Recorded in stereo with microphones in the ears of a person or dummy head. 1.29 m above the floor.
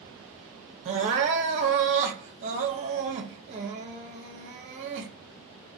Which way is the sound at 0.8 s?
35° right (ahead or behind).